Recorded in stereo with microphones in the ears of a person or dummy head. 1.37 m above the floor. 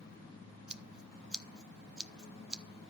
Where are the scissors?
5° right (ahead or behind), 0.7 m.